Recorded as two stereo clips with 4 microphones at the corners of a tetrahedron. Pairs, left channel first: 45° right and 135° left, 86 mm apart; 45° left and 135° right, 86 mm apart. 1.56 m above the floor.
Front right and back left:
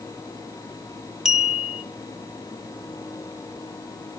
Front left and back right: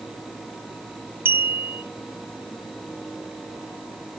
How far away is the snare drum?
I don't hear a snare drum.